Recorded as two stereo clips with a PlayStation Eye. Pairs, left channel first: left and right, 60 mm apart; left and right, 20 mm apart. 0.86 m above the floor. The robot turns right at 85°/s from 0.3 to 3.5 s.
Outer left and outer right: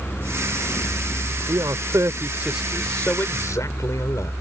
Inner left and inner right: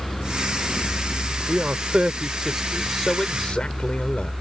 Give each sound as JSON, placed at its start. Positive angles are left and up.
{"t": 1.5, "sound": "a man speaking", "azimuth_deg": -105}